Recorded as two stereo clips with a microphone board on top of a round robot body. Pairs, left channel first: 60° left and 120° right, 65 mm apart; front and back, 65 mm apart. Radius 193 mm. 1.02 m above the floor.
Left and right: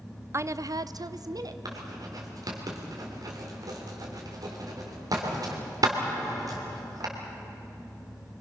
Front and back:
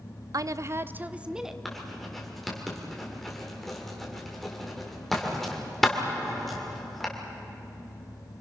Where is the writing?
85° right, 3 m.